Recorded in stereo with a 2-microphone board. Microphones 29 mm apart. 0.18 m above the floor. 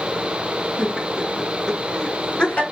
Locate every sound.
0.8 s laughter: 25° right (ahead or behind), 1.3 m; by 2.6 s 40° left (ahead or behind), 1.9 m